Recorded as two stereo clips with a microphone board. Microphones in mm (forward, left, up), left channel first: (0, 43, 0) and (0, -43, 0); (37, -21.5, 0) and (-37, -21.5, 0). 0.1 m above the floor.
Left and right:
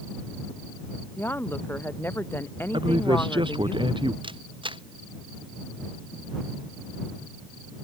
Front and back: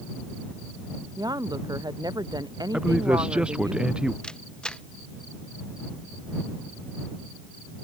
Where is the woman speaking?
155° left.